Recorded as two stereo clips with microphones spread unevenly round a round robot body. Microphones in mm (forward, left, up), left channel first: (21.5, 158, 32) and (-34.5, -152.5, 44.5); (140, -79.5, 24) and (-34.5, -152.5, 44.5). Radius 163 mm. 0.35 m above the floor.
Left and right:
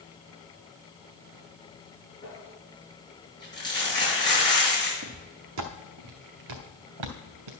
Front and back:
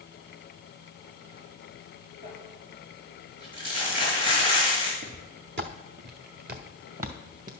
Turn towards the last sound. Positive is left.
turn(degrees=-110)